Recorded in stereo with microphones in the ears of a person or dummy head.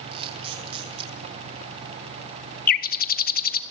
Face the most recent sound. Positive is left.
turn(degrees=50)  # may be behind; listen again after turning